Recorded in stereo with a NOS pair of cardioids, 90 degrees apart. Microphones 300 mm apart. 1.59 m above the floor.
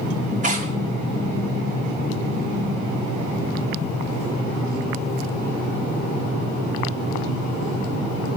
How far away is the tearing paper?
About 2.5 m.